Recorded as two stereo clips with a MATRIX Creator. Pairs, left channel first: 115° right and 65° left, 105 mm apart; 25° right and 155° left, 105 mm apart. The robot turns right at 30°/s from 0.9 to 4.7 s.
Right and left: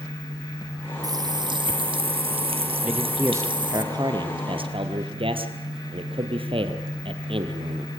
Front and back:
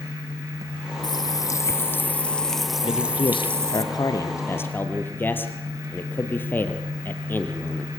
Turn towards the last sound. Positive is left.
turn(degrees=45)